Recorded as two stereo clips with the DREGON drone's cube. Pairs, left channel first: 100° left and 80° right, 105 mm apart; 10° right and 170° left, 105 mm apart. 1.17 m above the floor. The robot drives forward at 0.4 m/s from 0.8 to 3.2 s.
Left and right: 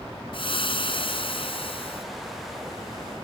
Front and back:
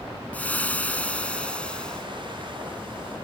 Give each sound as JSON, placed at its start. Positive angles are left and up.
{"t": 0.3, "sound": "frying", "azimuth_deg": 65}